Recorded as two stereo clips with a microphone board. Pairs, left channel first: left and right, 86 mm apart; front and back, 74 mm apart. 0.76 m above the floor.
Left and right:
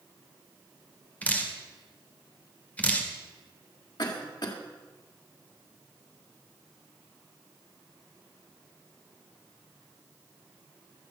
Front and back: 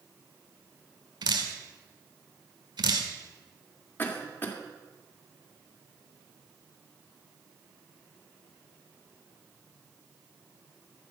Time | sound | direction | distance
1.2 | dripping | 165° left | 1.8 m
4.0 | a cough | 60° left | 2 m